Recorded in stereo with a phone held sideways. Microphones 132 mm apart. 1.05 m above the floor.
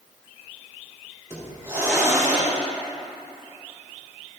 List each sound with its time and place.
1.3 s a hiss: 25° right (ahead or behind), 3 m